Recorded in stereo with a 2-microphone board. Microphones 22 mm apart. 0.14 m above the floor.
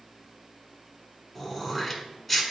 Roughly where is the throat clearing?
Centre.